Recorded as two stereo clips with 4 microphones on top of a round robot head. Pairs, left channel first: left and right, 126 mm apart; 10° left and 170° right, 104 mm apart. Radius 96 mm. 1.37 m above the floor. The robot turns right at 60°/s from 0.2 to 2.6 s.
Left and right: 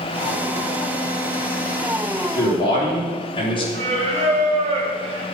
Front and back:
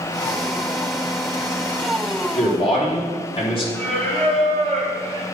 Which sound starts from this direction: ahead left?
A man speaking, at 2.4 s.